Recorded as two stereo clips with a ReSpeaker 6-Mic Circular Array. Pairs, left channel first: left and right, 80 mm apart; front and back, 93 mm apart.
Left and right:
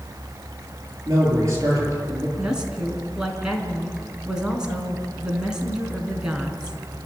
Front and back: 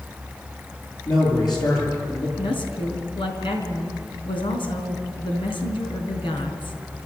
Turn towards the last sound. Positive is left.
turn(degrees=-10)